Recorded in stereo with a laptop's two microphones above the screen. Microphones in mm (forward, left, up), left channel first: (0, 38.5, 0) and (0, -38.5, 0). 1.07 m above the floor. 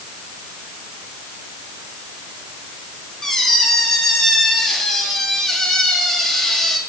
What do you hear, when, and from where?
3.2 s a squeak: 5° left (ahead or behind), 1.1 m